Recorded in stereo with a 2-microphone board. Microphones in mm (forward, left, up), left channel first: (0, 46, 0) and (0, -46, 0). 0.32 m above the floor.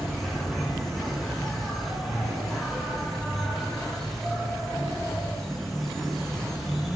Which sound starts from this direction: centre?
An insect, at 0.0 s.